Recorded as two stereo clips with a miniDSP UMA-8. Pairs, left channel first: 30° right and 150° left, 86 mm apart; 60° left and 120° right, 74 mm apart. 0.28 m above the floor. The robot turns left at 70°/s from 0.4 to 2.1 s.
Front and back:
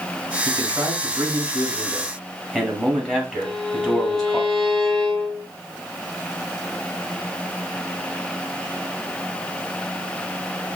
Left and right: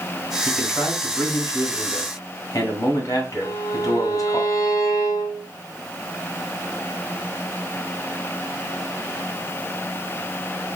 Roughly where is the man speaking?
Behind.